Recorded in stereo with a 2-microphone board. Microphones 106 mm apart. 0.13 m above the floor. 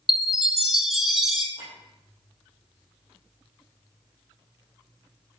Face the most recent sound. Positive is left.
turn(degrees=60)  # may be behind; listen again after turning